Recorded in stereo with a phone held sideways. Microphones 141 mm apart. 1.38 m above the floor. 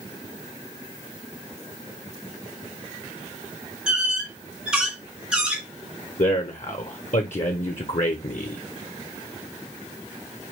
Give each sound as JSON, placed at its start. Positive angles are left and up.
{"t": 3.9, "sound": "a squeak", "side_deg": -5, "distance_m": 1.7}
{"t": 6.2, "sound": "a man speaking", "side_deg": 60, "distance_m": 0.7}